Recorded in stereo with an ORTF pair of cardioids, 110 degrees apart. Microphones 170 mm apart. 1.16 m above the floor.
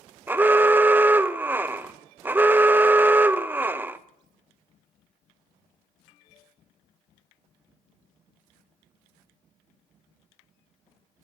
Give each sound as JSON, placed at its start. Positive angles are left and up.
{"t": 0.3, "sound": "an alarm", "azimuth_deg": -10, "distance_m": 0.5}